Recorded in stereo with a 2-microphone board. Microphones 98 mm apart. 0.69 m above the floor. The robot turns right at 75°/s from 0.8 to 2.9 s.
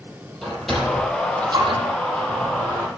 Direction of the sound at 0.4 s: 5° left (ahead or behind).